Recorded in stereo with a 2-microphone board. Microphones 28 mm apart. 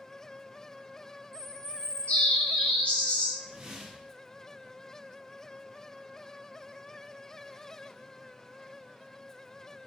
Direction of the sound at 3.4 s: 20° right (ahead or behind).